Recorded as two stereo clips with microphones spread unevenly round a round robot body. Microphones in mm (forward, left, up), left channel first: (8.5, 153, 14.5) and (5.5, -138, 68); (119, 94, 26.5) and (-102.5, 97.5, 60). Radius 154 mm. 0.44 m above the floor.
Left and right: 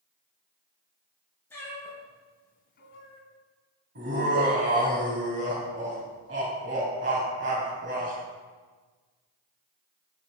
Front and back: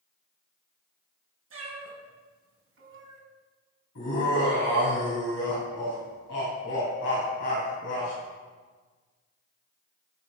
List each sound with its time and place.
1.5 s a cat meowing: 175° left, 2.5 m; by 3.2 s 135° left, 1.5 m
4.0 s laughter: 35° right, 3 m